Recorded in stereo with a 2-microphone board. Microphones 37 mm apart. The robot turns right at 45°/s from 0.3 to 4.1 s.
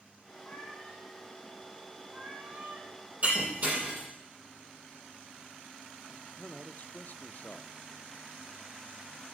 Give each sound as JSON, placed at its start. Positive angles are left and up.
{"t": 0.4, "sound": "a cat meowing", "azimuth_deg": 120, "distance_m": 3.0}
{"t": 3.2, "sound": "breaking glass", "side_deg": -40, "distance_m": 7.0}
{"t": 6.1, "sound": "a man speaking", "side_deg": 50, "distance_m": 0.6}